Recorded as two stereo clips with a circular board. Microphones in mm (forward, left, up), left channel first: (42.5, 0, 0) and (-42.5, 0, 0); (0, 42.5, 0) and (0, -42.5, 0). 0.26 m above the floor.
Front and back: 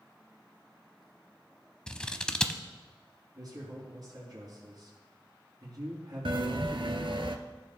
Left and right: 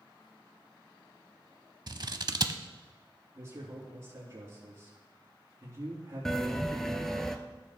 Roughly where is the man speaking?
Behind right.